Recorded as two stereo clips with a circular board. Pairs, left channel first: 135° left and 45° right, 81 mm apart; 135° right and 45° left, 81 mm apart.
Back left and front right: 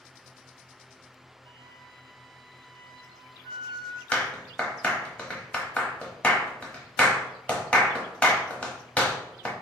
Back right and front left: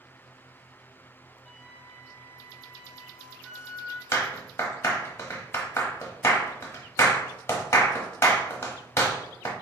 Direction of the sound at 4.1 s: 160° right.